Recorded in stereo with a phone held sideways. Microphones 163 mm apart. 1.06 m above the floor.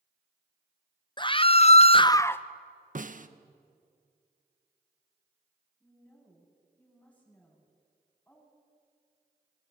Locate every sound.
1.2 s a scream: 30° left (ahead or behind), 1.0 m; by 2.5 s 10° left (ahead or behind), 0.9 m
3.0 s a snare drum: 50° right (ahead or behind), 1.2 m
5.8 s a woman speaking: 10° left (ahead or behind), 8.5 m